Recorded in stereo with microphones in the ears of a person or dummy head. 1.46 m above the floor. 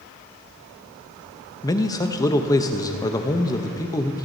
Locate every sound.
1.6 s a man speaking: 15° left (ahead or behind), 0.7 m